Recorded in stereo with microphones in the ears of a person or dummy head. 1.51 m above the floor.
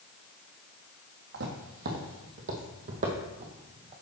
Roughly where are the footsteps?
Right.